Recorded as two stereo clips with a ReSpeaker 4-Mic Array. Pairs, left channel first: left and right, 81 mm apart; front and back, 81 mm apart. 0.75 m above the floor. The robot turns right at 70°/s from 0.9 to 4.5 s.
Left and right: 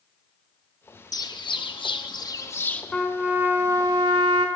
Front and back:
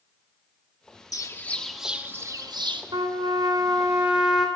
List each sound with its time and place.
1.1 s a bird: 45° left, 0.7 m; by 2.8 s 165° left, 0.7 m
2.9 s a trumpet: 170° left, 1.4 m; by 4.5 s 85° right, 1.4 m